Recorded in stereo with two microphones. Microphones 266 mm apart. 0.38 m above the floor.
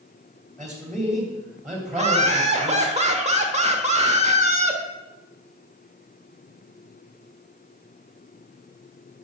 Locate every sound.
0.6 s a man speaking: centre (ahead or behind), 2.5 m
1.9 s laughter: 25° right (ahead or behind), 1.2 m